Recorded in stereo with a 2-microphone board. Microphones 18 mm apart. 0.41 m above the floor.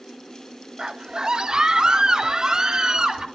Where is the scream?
40° right (ahead or behind), 0.9 m; by 3.2 s 35° right (ahead or behind), 2.5 m.